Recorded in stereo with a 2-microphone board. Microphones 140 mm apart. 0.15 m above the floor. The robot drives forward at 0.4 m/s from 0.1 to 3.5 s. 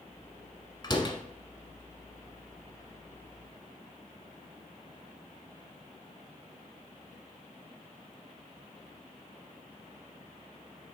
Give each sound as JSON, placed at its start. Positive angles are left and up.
{"t": 0.8, "sound": "a door slam", "side_deg": 30, "distance_m": 1.0}